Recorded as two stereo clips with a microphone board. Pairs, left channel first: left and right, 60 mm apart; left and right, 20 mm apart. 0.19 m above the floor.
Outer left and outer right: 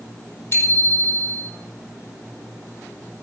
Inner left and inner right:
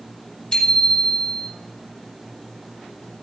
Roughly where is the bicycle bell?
Left.